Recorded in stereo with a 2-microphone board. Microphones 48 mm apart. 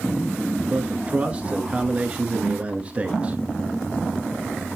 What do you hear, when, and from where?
0.7 s a man speaking: 25° right (ahead or behind), 1.2 m